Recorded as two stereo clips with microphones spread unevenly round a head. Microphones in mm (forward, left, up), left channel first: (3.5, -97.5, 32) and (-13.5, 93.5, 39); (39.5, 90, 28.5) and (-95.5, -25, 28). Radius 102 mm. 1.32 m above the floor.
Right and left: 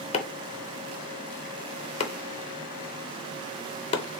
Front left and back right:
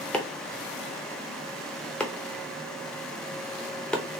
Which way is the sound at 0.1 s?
40° right.